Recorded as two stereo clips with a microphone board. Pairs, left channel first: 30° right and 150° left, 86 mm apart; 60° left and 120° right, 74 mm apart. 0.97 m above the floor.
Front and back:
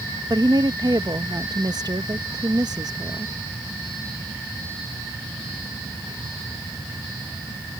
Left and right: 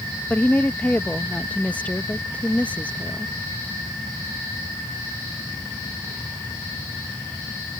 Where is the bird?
I don't hear a bird.